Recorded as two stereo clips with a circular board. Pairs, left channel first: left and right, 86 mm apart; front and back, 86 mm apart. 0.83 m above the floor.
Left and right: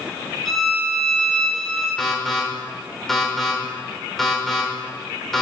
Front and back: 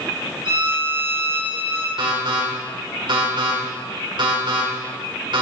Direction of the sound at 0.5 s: 175° left.